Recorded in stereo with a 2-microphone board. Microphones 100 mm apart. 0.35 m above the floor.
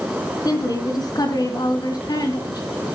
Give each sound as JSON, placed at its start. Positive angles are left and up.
{"t": 0.5, "sound": "a woman speaking", "side_deg": 40, "distance_m": 3.0}